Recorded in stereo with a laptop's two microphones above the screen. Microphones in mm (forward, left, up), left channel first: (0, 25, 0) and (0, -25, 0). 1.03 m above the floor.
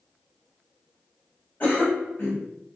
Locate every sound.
1.6 s a cough: 40° left (ahead or behind), 1.0 m